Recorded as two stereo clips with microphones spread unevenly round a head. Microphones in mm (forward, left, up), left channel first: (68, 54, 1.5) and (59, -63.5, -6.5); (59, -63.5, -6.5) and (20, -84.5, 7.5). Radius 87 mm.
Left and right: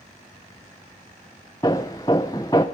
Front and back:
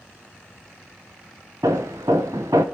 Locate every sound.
1.6 s hammering: 160° left, 0.6 m